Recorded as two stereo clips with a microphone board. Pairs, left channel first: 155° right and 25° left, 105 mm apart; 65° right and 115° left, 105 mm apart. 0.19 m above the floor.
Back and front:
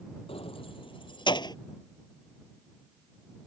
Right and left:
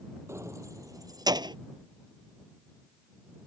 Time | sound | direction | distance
0.3 | keys jangling | 175° left | ?